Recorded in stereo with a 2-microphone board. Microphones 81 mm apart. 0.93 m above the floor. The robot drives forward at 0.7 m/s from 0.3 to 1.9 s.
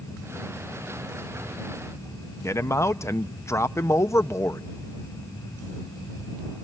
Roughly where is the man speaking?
Left.